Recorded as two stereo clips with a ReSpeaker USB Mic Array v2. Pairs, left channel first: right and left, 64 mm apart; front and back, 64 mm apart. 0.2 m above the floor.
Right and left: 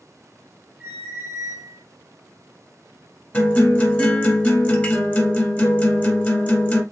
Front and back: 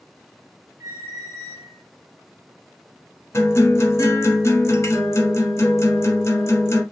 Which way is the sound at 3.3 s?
30° right.